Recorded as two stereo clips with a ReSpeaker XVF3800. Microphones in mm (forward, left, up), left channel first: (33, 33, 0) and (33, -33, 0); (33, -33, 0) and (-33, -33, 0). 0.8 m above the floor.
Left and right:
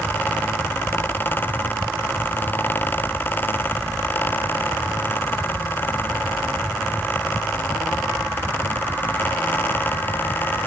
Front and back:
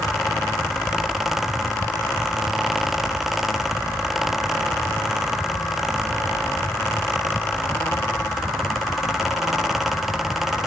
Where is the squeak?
No squeak in this recording.